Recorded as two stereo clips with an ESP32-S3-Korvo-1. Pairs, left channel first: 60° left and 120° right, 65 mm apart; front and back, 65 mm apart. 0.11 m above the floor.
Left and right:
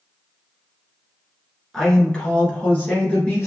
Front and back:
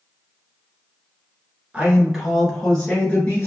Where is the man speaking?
135° left, 1.3 m; by 3.5 s 25° left, 1.4 m.